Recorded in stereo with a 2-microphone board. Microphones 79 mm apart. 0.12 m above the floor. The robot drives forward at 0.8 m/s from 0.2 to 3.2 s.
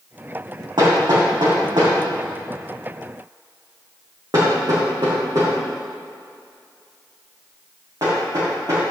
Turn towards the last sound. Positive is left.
turn(degrees=-55)  # may be behind; listen again after turning